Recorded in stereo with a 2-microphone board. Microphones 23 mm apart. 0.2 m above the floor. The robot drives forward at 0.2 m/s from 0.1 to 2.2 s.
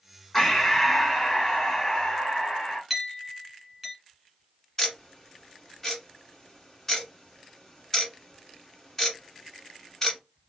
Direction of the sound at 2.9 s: 10° right (ahead or behind).